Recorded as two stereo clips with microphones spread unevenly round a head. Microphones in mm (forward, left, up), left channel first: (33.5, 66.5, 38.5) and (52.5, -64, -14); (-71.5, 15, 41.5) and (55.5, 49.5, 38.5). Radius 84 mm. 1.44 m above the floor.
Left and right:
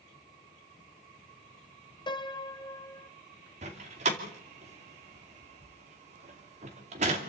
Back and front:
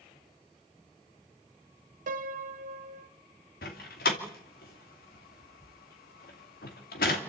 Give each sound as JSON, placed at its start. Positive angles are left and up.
{"t": 2.1, "sound": "a piano", "azimuth_deg": 35, "distance_m": 1.2}
{"t": 3.6, "sound": "a door slam", "azimuth_deg": -135, "distance_m": 2.5}